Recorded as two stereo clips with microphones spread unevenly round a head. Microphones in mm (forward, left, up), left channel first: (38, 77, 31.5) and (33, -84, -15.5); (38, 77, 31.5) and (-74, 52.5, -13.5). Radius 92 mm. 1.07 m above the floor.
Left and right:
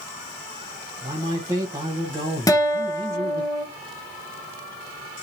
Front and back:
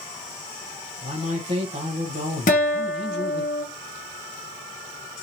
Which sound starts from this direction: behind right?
A man speaking, at 1.0 s.